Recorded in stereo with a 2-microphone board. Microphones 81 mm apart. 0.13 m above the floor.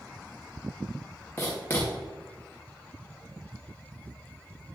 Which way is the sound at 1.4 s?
20° left (ahead or behind).